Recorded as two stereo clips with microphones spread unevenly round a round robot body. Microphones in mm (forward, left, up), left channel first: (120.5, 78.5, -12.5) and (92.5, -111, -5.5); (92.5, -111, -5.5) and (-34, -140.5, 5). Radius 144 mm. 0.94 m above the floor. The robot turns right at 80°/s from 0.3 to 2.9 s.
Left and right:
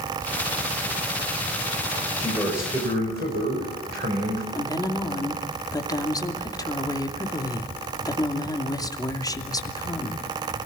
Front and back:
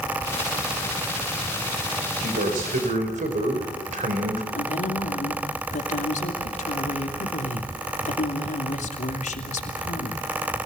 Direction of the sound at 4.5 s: 15° left.